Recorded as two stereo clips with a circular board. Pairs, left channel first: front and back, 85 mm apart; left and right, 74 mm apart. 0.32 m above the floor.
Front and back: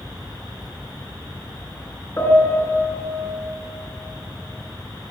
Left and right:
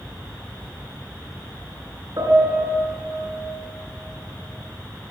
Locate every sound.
2.2 s a piano: 60° right, 3.5 m